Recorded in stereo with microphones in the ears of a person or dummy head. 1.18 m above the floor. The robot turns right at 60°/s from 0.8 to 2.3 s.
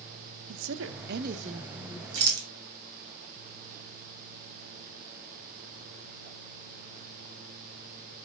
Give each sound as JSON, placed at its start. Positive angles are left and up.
{"t": 0.5, "sound": "a woman speaking", "azimuth_deg": -85, "distance_m": 0.9}
{"t": 2.1, "sound": "a rattle", "side_deg": -65, "distance_m": 2.0}